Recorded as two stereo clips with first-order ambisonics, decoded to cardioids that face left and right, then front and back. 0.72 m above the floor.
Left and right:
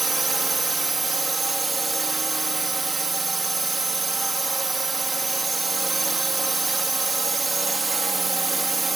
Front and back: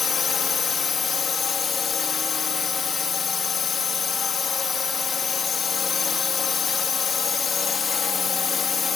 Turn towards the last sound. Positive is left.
turn(degrees=-25)